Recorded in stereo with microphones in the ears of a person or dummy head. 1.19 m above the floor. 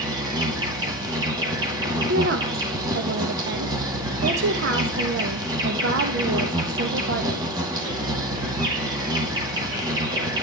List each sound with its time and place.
0.0 s an insect: 20° right (ahead or behind), 2 m
2.1 s a woman speaking: 65° right (ahead or behind), 1.0 m